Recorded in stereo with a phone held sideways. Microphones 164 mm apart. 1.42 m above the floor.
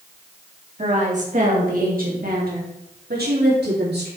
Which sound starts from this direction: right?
A woman speaking, at 0.8 s.